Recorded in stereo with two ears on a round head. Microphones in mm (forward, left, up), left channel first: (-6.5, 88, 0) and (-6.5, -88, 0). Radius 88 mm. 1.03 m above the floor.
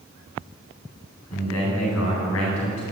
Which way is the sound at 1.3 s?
85° left.